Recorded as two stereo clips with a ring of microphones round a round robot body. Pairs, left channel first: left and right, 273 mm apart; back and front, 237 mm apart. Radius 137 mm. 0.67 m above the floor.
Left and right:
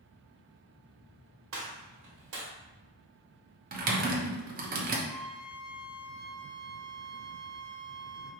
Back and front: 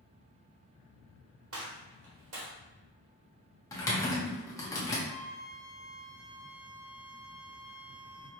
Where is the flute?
160° left, 1.3 m.